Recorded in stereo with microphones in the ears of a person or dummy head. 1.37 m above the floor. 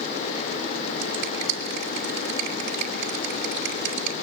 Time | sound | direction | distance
1.0 | a finger snap | 60° right (ahead or behind) | 2.5 m